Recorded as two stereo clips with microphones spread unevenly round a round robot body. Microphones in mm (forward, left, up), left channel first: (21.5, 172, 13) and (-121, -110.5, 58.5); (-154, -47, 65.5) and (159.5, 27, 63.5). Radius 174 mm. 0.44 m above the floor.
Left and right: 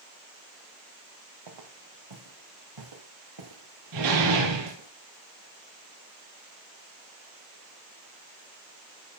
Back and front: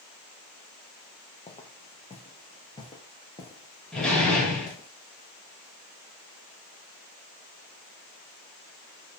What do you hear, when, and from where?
1.5 s footsteps: 95° right, 4 m; by 4.9 s 90° right, 9 m
3.9 s a door slam: 80° right, 9 m